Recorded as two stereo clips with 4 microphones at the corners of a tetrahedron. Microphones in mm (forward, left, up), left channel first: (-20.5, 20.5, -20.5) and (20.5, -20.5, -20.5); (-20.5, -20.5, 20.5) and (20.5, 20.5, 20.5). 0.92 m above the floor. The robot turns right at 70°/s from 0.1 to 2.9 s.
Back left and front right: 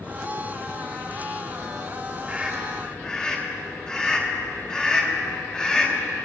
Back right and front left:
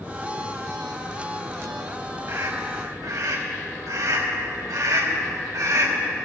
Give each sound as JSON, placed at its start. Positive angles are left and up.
{"t": 2.3, "sound": "a scream", "azimuth_deg": 15, "distance_m": 3.0}